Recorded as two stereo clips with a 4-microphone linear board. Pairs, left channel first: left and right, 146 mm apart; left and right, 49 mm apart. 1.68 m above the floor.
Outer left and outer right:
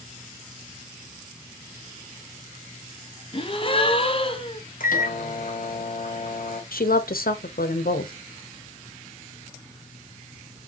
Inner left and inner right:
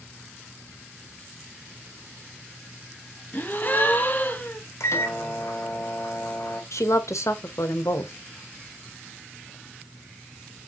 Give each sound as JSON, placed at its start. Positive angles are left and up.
{"t": 3.3, "sound": "a gasp", "side_deg": 40, "distance_m": 0.6}
{"t": 4.8, "sound": "a microwave", "side_deg": 70, "distance_m": 0.9}
{"t": 6.7, "sound": "a woman speaking", "side_deg": 85, "distance_m": 0.8}